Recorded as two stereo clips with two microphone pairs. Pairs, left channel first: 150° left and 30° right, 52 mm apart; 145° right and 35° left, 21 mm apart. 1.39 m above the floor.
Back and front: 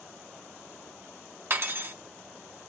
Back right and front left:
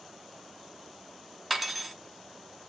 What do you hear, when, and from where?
1.5 s cutlery clinking: 45° right, 0.7 m